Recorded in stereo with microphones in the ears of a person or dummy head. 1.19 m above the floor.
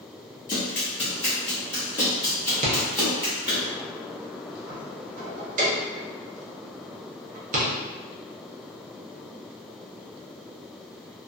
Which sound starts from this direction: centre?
Running footsteps, at 0.5 s.